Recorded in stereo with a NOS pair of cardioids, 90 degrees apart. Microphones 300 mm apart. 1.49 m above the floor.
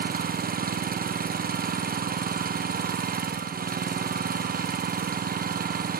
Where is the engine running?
30° right, 0.8 m.